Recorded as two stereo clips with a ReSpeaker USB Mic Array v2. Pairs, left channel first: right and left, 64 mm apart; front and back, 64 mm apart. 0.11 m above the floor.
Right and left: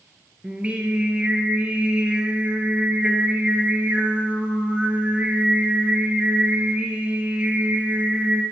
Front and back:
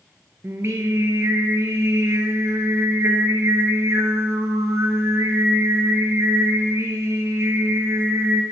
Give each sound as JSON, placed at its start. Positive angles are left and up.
{"t": 0.4, "sound": "singing", "azimuth_deg": 155, "distance_m": 1.3}